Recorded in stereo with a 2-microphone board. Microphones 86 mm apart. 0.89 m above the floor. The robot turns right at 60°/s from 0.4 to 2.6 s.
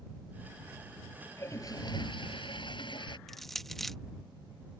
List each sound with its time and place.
1.4 s a toilet flushing: 30° left; by 3.2 s 105° left
3.3 s crushing: 5° left (ahead or behind)